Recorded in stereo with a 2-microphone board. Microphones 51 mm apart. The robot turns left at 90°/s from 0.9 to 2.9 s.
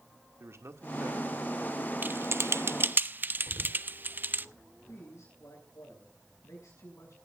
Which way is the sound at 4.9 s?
75° left (ahead or behind).